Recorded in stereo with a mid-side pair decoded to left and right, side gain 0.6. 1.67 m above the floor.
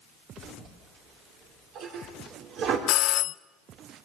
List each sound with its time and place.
0.4 s a toilet flushing: 60° right, 4.5 m
2.9 s a doorbell: 65° left, 0.6 m